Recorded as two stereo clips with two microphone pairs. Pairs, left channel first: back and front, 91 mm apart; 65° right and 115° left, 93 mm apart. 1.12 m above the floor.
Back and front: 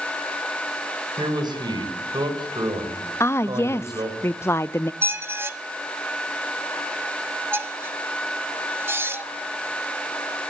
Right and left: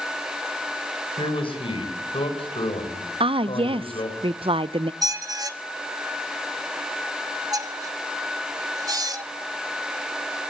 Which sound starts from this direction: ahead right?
A man speaking, at 1.2 s.